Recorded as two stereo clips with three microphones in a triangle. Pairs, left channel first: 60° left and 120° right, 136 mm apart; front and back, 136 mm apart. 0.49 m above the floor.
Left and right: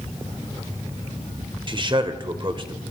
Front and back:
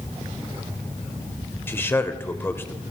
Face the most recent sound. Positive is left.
turn(degrees=-70)